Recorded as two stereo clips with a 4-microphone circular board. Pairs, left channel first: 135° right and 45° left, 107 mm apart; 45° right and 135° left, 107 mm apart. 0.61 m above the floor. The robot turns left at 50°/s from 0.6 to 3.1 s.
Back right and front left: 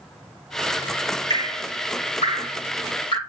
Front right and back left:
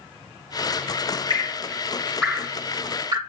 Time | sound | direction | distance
1.3 | dripping | 85° right | 3 m